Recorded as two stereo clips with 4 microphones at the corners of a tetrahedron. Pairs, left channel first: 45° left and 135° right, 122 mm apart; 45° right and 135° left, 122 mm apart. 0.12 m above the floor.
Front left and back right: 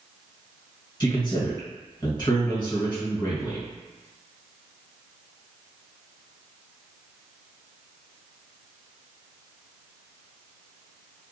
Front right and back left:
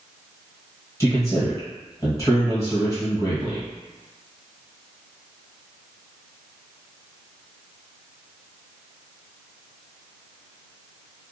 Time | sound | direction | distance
1.0 | a man speaking | 10° left | 1.8 m